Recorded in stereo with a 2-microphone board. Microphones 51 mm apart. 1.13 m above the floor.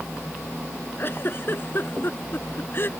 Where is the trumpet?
No trumpet in this recording.